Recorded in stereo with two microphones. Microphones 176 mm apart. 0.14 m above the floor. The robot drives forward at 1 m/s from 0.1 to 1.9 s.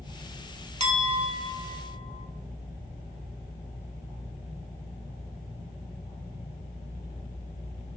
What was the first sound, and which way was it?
A clink, 40° right (ahead or behind).